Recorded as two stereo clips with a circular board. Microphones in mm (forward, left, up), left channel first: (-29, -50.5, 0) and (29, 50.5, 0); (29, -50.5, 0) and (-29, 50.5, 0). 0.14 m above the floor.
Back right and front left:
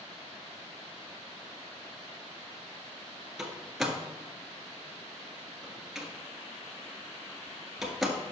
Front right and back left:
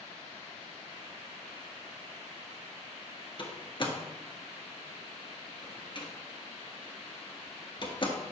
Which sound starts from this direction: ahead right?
A door slam, at 3.4 s.